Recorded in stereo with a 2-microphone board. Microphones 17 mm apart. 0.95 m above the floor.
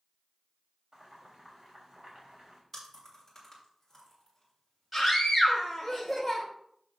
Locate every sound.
0.9 s boiling: 55° right (ahead or behind), 4 m
2.7 s chewing: 15° left (ahead or behind), 6 m
4.9 s a scream: 10° right (ahead or behind), 4 m